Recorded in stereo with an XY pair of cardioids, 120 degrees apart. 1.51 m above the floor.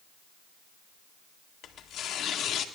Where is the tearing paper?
55° left, 1.4 m.